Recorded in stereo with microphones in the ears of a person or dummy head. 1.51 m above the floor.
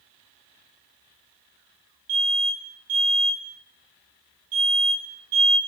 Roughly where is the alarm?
Right.